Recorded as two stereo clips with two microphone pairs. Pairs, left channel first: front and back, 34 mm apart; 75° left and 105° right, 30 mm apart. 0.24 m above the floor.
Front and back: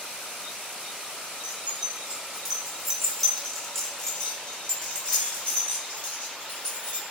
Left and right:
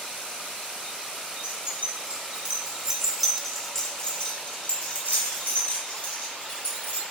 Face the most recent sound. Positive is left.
turn(degrees=60)